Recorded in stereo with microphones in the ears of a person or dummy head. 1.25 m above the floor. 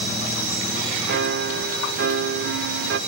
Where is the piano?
50° right (ahead or behind), 0.7 m.